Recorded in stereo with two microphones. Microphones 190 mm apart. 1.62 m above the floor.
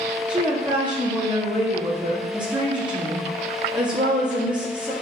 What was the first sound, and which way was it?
A woman speaking, 25° right (ahead or behind).